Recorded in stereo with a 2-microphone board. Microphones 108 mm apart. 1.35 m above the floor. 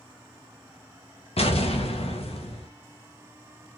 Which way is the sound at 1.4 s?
70° left (ahead or behind).